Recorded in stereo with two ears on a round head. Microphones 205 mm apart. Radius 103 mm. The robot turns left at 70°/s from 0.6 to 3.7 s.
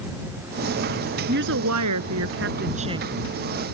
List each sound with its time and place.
1.3 s a woman speaking: 40° right; by 3.1 s 170° right